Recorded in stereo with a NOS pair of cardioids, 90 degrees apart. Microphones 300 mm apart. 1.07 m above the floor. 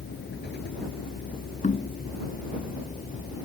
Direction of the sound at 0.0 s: 35° left.